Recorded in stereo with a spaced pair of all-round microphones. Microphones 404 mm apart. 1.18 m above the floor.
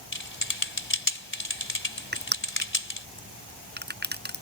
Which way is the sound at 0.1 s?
30° left (ahead or behind).